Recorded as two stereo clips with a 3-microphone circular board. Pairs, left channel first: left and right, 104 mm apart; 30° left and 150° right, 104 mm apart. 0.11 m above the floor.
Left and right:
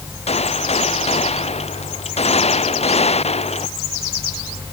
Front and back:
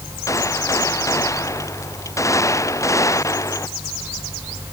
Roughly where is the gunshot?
Left.